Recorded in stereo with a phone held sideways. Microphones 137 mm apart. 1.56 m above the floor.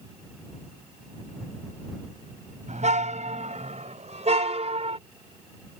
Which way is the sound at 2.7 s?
60° right (ahead or behind).